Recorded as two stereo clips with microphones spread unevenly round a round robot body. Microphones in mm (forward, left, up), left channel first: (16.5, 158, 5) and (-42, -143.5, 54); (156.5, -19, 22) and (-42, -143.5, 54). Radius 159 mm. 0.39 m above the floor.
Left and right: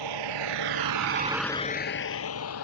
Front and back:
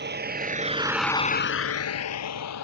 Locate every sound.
0.0 s a vehicle: 105° right; by 2.6 s 35° left